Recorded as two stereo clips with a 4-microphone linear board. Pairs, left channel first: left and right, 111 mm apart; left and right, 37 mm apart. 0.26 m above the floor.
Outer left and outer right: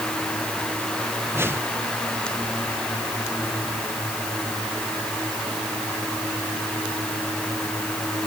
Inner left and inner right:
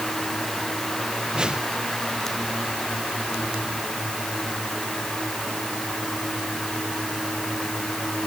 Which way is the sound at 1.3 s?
20° right (ahead or behind).